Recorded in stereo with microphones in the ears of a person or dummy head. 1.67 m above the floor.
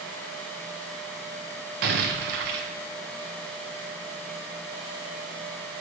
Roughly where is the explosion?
Right.